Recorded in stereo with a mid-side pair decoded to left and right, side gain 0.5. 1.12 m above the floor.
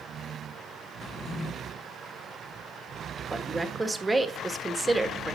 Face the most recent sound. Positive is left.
turn(degrees=-15)